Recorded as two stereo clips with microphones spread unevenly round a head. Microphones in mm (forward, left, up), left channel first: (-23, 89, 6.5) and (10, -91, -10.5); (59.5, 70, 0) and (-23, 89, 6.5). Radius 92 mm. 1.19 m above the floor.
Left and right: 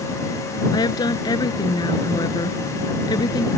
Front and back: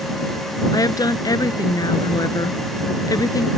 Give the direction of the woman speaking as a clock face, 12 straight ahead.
11 o'clock.